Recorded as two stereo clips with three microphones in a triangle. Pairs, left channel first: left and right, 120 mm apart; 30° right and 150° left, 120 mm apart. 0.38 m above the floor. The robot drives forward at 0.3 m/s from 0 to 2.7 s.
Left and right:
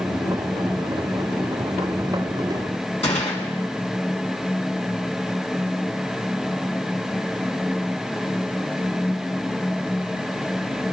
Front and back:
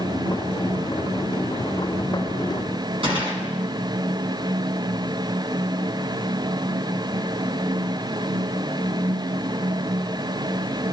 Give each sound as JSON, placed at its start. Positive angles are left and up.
{"t": 3.0, "sound": "a gunshot", "azimuth_deg": 110, "distance_m": 2.5}